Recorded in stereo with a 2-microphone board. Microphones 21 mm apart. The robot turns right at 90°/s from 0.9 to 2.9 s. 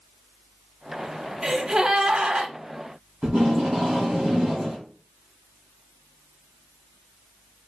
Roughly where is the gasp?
Behind.